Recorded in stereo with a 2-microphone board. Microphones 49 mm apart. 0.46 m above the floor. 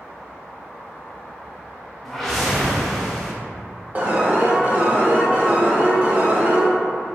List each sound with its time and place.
2.0 s a whoosh: 5° left (ahead or behind), 0.6 m
4.0 s an alarm: 30° right (ahead or behind), 0.6 m